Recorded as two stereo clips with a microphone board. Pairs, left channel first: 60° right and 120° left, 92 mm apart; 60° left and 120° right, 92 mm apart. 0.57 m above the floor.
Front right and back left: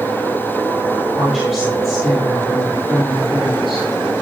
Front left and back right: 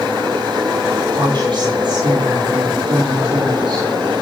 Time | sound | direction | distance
1.2 | a woman speaking | 155° right | 9 m